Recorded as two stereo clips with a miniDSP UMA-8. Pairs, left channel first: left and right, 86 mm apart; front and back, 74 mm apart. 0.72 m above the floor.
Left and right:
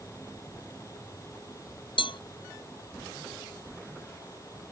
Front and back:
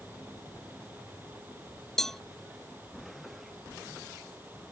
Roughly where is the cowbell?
Left.